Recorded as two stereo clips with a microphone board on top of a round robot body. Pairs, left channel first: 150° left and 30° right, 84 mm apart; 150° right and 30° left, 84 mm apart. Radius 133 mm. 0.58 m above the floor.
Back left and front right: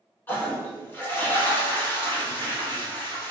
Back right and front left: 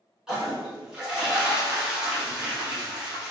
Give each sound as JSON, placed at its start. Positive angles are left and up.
{"t": 0.3, "sound": "a toilet flushing", "azimuth_deg": 105, "distance_m": 1.1}